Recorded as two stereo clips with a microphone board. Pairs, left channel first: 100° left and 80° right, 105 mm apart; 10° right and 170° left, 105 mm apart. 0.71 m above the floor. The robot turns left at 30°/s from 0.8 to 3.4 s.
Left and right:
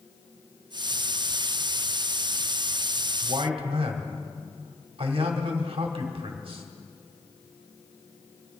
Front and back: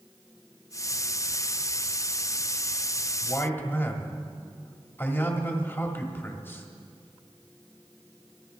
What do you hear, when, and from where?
3.2 s a man speaking: 75° right, 1.8 m; by 6.7 s 80° right, 1.8 m